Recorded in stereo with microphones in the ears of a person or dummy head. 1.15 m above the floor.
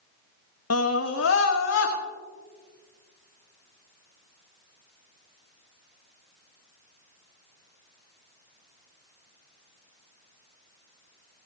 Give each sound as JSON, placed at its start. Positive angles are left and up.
{"t": 0.7, "sound": "a scream", "side_deg": 70, "distance_m": 0.8}